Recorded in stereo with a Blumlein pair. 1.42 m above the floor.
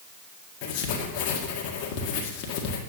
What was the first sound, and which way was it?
Writing, 40° left.